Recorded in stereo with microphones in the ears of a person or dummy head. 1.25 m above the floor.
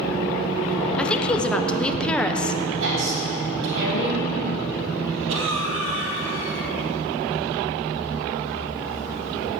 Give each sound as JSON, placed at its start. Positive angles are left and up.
{"t": 1.0, "sound": "a woman speaking", "side_deg": 5, "distance_m": 0.8}
{"t": 2.8, "sound": "a woman speaking", "side_deg": -70, "distance_m": 3.5}
{"t": 5.3, "sound": "a cough", "side_deg": -65, "distance_m": 2.5}